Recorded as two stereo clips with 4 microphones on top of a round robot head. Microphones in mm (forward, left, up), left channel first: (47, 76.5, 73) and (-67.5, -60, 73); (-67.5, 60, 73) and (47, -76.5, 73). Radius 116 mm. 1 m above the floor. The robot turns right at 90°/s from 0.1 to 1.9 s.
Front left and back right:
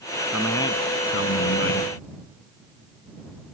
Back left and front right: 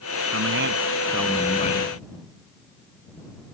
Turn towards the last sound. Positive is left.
turn(degrees=95)